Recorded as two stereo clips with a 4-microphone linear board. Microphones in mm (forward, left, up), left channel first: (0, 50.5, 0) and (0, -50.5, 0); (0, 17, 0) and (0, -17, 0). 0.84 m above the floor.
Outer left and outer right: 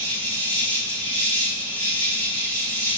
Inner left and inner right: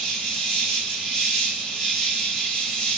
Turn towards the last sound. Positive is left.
turn(degrees=15)  # may be behind; listen again after turning